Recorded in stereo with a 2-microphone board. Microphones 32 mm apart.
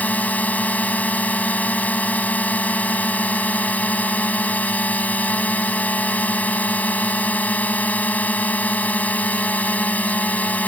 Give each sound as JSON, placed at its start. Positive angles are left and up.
{"t": 0.0, "sound": "a drone", "side_deg": 60}